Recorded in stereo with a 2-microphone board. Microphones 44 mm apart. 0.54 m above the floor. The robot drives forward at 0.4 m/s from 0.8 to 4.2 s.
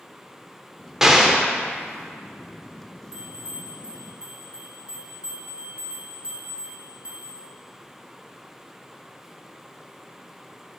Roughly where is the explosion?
Centre.